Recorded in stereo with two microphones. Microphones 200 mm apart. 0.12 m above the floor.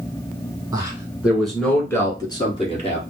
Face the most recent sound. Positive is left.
turn(degrees=35)  # may be behind; listen again after turning